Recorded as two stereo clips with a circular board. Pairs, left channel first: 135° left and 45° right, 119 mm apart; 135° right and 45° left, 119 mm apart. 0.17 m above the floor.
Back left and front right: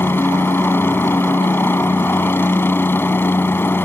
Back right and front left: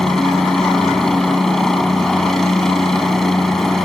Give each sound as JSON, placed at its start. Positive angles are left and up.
{"t": 0.0, "sound": "a helicopter", "azimuth_deg": 145}